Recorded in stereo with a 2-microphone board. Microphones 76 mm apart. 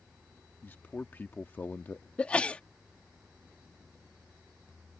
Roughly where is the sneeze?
Centre.